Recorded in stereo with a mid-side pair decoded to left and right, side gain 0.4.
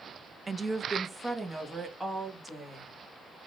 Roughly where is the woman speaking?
Ahead right.